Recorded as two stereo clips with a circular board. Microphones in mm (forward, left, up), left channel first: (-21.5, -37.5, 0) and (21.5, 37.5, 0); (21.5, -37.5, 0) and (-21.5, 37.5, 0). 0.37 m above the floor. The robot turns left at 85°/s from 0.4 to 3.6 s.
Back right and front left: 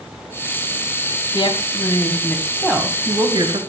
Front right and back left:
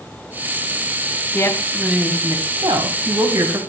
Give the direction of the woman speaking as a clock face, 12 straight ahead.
4 o'clock.